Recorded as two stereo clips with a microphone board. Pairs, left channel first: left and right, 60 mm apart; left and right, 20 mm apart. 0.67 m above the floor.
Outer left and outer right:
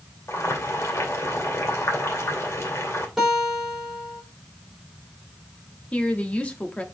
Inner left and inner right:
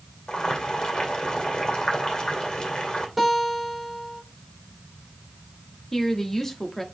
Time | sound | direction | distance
0.3 | boiling | 50° left (ahead or behind) | 2.5 m
3.2 | a guitar | 5° right (ahead or behind) | 4 m
5.9 | a woman speaking | 20° left (ahead or behind) | 1.3 m